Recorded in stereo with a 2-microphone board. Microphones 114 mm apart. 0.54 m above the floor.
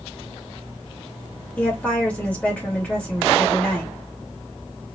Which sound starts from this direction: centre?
A woman speaking, at 1.6 s.